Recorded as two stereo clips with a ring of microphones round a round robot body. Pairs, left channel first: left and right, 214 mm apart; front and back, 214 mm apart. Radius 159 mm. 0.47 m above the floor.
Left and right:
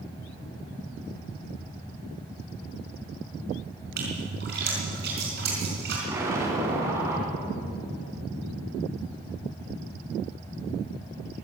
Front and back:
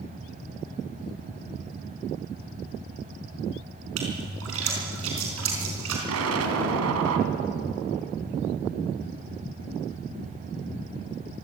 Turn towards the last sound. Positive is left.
turn(degrees=-170)